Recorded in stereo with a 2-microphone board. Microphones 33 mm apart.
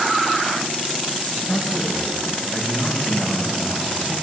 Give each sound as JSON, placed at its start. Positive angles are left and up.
{"t": 1.3, "sound": "a man speaking", "side_deg": 20, "distance_m": 8.5}